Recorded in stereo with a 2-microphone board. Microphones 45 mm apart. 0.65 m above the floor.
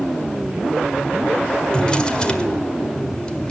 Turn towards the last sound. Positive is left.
turn(degrees=20)  # may be behind; listen again after turning